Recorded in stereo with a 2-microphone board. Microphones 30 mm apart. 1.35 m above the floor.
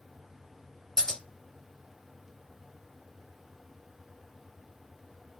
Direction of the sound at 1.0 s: 15° left (ahead or behind).